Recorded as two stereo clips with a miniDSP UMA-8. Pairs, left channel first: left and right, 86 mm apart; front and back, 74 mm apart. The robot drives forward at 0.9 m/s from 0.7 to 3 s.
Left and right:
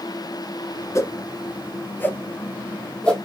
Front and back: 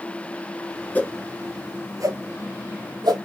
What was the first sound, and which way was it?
A whoosh, 55° left.